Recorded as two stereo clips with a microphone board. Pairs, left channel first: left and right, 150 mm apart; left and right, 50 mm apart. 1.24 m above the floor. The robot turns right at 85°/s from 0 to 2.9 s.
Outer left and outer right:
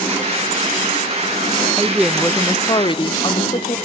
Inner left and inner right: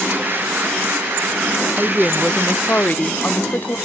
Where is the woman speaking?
20° right, 0.6 m; by 3.8 s 75° left, 0.6 m.